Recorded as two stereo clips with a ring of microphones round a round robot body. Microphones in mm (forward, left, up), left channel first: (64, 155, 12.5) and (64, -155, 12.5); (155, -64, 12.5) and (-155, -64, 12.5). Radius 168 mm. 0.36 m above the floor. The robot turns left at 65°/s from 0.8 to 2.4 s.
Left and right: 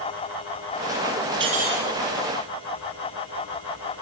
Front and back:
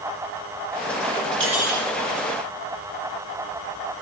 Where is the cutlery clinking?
130° right, 4.5 m; by 1.9 s 160° right, 4.5 m.